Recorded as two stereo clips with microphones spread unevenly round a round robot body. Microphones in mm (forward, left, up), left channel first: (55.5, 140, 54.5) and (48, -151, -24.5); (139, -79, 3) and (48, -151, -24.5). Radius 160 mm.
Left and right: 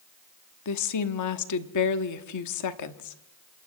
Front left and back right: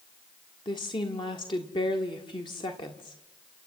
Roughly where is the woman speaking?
Left.